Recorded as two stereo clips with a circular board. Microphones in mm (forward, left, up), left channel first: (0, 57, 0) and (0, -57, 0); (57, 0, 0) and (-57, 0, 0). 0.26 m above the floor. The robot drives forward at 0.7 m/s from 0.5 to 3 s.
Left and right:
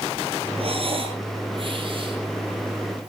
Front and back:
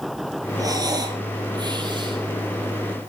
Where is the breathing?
120° right, 4.5 m; by 3.1 s 140° right, 5.5 m.